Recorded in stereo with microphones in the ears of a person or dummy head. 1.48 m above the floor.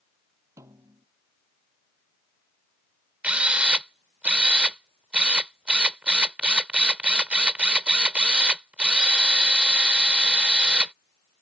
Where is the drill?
5° right (ahead or behind).